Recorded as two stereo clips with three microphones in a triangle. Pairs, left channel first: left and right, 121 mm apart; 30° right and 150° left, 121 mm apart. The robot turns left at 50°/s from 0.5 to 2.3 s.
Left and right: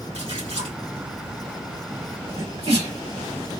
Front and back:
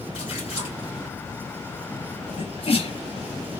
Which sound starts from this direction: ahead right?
A sneeze, at 2.4 s.